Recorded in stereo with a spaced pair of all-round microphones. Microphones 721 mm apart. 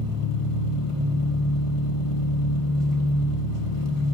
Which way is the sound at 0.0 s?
45° left (ahead or behind).